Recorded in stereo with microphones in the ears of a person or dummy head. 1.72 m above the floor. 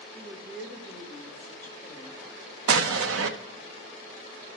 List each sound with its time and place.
0.1 s a woman speaking: 5° right (ahead or behind), 2 m; by 2.2 s 15° left (ahead or behind), 3 m
2.7 s an explosion: 85° right, 0.9 m